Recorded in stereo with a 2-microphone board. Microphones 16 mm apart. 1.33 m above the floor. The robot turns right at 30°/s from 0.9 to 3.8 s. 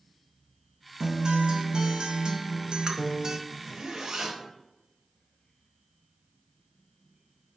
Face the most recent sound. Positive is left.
turn(degrees=-55)  # may be behind; listen again after turning